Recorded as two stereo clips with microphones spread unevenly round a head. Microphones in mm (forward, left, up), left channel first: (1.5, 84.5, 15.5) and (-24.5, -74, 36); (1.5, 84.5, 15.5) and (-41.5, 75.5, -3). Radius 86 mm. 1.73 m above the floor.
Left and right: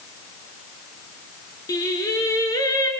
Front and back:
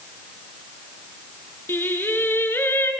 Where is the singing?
5° left, 3.5 m.